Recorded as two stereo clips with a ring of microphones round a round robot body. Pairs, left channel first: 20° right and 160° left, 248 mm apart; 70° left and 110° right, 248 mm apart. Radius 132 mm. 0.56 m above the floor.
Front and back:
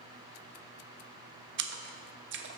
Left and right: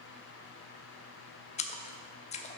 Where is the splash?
125° left, 0.8 m.